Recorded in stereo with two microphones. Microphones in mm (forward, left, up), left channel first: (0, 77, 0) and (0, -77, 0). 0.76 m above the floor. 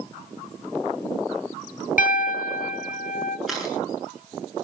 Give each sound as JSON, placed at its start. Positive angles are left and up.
{"t": 2.0, "sound": "a piano", "side_deg": 65, "distance_m": 1.1}
{"t": 3.5, "sound": "a camera shutter", "side_deg": 0, "distance_m": 9.0}